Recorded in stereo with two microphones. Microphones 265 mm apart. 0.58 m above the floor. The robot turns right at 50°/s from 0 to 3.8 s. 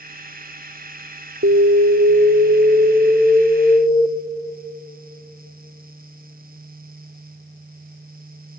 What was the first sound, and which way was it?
An alarm, 95° right.